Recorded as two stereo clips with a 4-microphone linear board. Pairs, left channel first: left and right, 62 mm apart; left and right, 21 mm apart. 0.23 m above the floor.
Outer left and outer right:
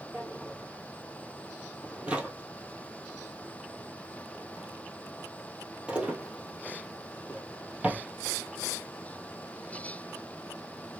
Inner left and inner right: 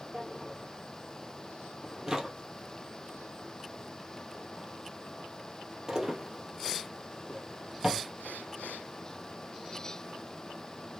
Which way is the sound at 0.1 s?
20° right (ahead or behind).